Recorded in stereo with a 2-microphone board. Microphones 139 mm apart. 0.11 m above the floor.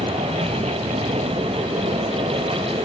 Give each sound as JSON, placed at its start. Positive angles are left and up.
{"t": 0.0, "sound": "an aircraft", "side_deg": -50}